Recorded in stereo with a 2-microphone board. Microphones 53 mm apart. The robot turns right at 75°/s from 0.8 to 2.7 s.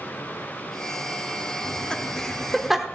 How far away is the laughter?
About 1.1 m.